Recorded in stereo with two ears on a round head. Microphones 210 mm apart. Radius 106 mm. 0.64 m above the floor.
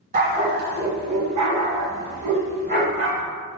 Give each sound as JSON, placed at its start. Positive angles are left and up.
{"t": 0.1, "sound": "a dog barking", "side_deg": -40, "distance_m": 0.9}